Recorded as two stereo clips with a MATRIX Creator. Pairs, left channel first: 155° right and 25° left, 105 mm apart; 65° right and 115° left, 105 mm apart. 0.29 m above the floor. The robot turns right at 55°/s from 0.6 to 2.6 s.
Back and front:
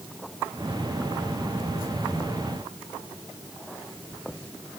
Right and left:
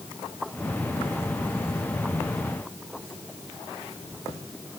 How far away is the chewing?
No chewing in this recording.